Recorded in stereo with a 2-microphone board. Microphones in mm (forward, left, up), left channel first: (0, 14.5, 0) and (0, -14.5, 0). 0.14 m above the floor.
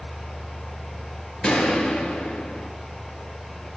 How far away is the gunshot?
About 2 m.